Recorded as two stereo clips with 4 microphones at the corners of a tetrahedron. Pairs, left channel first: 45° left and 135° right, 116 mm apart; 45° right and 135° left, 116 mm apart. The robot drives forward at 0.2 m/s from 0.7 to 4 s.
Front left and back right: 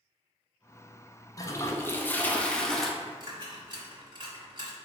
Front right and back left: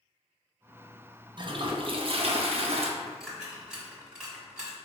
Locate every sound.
1.4 s a toilet flushing: 100° left, 0.5 m; by 2.9 s 130° left, 0.6 m
3.0 s a dropped coin: 140° right, 1.2 m; by 4.8 s 145° right, 1.3 m